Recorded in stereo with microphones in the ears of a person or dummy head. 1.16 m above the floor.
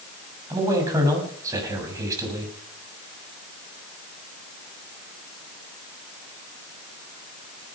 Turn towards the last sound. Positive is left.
turn(degrees=-20)  # may be behind; listen again after turning